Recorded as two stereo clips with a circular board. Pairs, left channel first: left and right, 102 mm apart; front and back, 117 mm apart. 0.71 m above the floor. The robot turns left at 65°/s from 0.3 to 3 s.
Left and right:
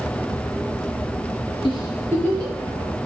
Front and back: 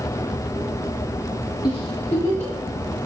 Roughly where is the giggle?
Ahead left.